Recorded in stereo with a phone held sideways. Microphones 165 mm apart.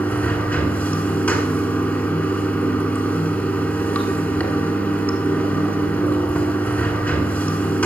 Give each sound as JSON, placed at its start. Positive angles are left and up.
{"t": 0.0, "sound": "running water", "side_deg": 10, "distance_m": 1.3}